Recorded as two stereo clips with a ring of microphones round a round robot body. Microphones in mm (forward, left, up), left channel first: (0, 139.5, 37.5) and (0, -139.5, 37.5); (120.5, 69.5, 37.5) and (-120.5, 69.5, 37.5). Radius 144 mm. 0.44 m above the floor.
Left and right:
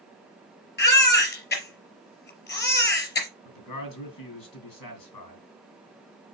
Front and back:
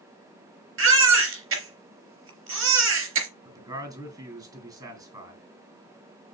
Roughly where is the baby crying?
Behind left.